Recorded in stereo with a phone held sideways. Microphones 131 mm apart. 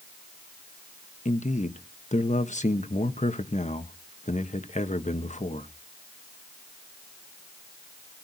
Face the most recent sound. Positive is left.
turn(degrees=60)  # may be behind; listen again after turning